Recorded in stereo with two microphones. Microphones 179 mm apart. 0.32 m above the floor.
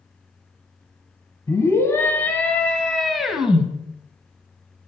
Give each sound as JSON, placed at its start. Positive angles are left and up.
{"t": 1.5, "sound": "a scream", "side_deg": 20, "distance_m": 2.5}